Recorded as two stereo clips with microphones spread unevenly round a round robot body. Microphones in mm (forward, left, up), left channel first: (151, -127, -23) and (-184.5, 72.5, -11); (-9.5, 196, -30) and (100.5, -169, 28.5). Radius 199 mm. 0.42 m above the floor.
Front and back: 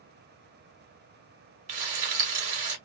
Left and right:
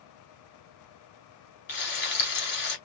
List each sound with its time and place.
1.7 s frying: 160° left, 1.7 m